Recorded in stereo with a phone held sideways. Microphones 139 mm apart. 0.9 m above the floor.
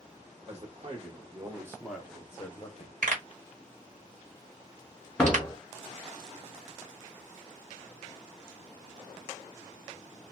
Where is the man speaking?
50° right (ahead or behind), 1.3 m; by 2.9 s 40° left (ahead or behind), 0.9 m.